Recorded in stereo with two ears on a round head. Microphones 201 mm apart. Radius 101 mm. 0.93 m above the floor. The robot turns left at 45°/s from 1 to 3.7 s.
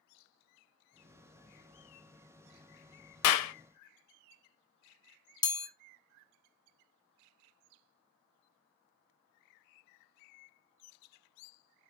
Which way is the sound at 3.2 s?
80° left.